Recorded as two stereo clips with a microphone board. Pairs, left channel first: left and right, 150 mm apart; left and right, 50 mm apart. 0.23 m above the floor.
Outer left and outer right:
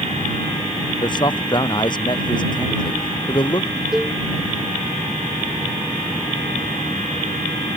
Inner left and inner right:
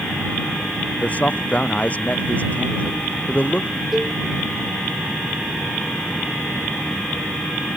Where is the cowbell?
Centre (ahead or behind).